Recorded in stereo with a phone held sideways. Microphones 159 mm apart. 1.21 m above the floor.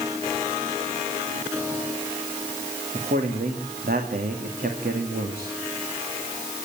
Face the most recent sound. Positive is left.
turn(degrees=-70)  # may be behind; listen again after turning